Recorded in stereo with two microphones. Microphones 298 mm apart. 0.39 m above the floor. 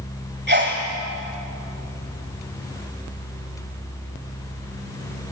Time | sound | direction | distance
0.5 | a sneeze | 35° right (ahead or behind) | 1.8 m